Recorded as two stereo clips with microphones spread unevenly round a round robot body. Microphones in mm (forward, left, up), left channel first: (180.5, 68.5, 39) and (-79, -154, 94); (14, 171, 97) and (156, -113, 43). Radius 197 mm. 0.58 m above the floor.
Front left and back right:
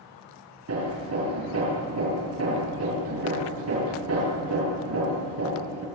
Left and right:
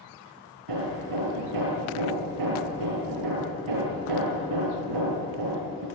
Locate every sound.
0.7 s hammering: 90° right, 6.5 m